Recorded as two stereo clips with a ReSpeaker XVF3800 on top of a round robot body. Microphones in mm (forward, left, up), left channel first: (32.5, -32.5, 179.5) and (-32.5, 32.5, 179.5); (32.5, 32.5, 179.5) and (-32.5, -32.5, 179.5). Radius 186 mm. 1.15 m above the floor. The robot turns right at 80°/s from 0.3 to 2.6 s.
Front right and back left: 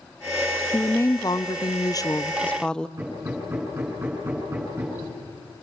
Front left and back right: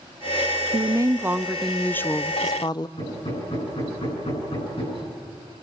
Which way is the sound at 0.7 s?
115° right.